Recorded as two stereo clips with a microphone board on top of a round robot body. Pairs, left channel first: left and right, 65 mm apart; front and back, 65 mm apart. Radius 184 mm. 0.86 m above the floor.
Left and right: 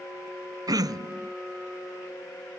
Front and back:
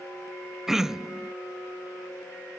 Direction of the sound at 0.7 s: 95° right.